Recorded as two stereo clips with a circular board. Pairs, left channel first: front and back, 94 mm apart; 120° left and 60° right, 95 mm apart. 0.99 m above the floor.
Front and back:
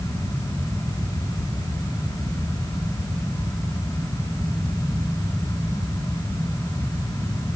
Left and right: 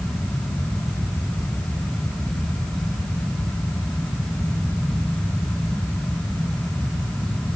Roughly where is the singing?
I don't hear singing.